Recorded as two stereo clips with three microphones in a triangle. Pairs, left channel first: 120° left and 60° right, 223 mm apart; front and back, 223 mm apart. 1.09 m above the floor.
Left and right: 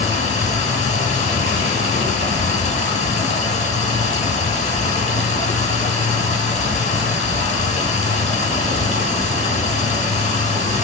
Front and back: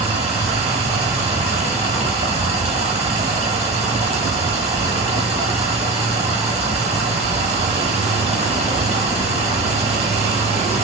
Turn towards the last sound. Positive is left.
turn(degrees=145)